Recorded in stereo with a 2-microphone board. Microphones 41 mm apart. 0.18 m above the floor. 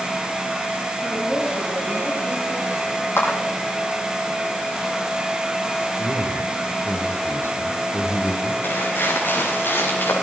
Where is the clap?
80° left, 6.5 m.